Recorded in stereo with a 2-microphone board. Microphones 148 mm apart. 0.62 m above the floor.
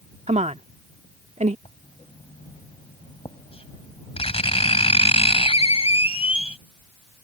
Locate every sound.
0.3 s a woman speaking: 50° right (ahead or behind)
1.6 s writing: 45° left (ahead or behind)